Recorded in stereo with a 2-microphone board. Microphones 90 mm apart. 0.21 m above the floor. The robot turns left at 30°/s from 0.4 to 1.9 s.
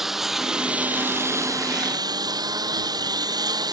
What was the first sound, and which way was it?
A lawn mower, 5° right.